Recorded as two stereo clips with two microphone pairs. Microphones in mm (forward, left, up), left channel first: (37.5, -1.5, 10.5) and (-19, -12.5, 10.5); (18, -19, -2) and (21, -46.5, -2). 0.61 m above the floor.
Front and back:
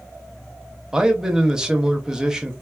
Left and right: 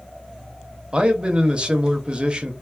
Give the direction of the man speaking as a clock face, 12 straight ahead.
3 o'clock.